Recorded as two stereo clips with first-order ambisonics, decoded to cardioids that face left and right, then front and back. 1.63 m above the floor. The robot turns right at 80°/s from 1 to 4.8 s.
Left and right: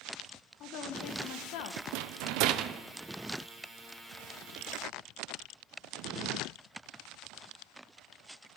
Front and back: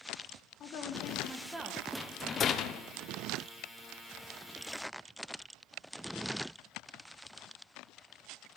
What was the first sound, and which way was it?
A woman speaking, 50° left.